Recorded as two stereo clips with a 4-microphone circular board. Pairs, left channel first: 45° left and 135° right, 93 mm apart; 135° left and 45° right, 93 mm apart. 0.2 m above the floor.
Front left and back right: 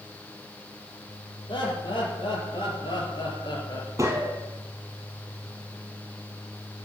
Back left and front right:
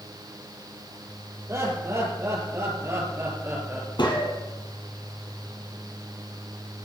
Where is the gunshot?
170° left, 3 m.